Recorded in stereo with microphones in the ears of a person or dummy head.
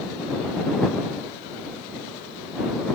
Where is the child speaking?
No child speaking in this recording.